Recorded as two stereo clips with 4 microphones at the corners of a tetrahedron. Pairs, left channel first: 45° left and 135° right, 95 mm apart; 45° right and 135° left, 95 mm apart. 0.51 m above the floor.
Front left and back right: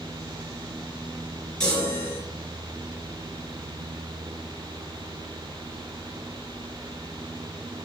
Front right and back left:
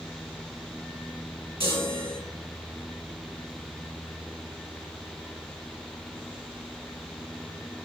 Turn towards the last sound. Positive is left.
turn(degrees=130)